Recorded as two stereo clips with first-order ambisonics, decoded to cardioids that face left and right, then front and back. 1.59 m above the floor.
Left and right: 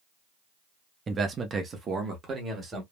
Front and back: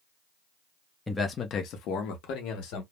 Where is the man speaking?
70° right, 0.5 m; by 2.8 s 25° right, 1.3 m.